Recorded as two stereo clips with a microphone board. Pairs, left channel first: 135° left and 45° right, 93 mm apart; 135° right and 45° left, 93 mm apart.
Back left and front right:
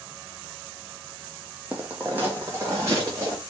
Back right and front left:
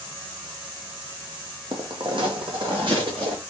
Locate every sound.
1.7 s footsteps: 30° left, 0.9 m; by 3.4 s 15° left, 2.0 m